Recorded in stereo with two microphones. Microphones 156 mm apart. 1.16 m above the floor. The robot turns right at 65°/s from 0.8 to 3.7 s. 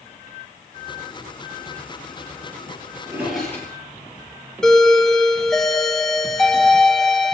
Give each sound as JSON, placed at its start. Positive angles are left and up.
{"t": 3.0, "sound": "a drawer", "side_deg": -20, "distance_m": 8.5}
{"t": 4.6, "sound": "a doorbell", "side_deg": 5, "distance_m": 1.2}